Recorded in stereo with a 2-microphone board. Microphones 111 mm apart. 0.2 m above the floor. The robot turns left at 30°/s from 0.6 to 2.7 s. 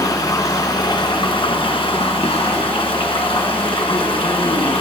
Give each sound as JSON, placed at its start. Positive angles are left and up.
{"t": 0.0, "sound": "running water", "azimuth_deg": 140, "distance_m": 1.6}